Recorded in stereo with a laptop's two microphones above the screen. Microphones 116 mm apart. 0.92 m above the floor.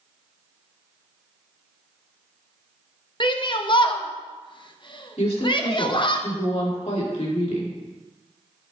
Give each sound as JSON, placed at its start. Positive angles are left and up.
{"t": 3.2, "sound": "a shout", "side_deg": 45, "distance_m": 0.8}
{"t": 5.2, "sound": "a woman speaking", "side_deg": 70, "distance_m": 2.0}